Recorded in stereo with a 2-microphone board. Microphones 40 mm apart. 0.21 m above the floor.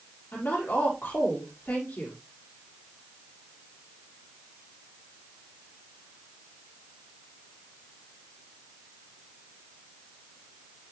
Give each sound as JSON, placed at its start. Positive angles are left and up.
{"t": 0.3, "sound": "a woman speaking", "side_deg": 65, "distance_m": 5.0}